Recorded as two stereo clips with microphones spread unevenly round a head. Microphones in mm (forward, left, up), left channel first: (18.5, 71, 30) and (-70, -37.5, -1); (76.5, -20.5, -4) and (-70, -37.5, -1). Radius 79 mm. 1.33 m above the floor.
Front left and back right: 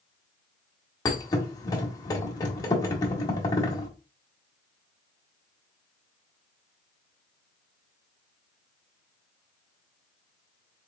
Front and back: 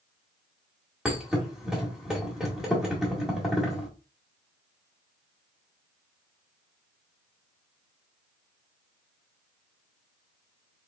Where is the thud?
100° left, 1.4 m.